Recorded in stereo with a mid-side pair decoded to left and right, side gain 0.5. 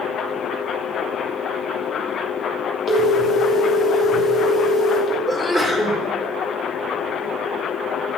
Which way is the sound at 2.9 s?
55° left.